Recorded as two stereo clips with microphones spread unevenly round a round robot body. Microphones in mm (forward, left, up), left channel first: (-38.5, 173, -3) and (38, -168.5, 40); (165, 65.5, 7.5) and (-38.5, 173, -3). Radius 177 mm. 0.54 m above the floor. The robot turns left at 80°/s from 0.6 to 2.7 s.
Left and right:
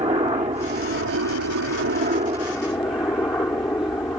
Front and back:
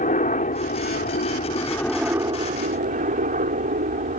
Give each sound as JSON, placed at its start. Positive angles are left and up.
{"t": 0.0, "sound": "a helicopter", "azimuth_deg": -10}